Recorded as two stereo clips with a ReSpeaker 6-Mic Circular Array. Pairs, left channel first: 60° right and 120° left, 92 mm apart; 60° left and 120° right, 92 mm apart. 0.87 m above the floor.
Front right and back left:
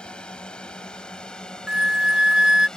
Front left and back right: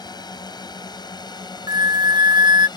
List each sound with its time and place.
0.0 s a drone: 20° left; by 2.8 s 25° left
1.7 s a flute: 160° right